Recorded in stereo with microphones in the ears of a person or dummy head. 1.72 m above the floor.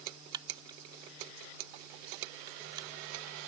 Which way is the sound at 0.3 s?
25° right (ahead or behind).